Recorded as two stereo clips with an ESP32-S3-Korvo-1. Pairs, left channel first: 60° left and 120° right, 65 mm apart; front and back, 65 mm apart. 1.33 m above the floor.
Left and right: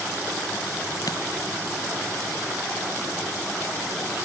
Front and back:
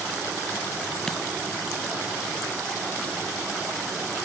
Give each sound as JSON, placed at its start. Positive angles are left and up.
{"t": 1.1, "sound": "a dropped coin", "azimuth_deg": 80}